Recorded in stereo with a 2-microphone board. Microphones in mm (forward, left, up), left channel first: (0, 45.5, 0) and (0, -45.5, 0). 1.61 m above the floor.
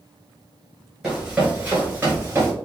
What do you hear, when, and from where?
1.0 s running footsteps: 5° right (ahead or behind), 1.7 m; by 2.5 s 30° right (ahead or behind), 1.7 m